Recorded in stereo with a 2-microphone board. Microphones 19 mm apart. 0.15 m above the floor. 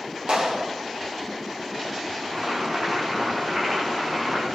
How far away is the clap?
About 5.5 m.